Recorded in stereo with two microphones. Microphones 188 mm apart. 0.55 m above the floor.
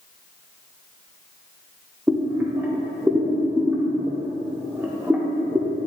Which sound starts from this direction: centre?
Boiling, at 2.1 s.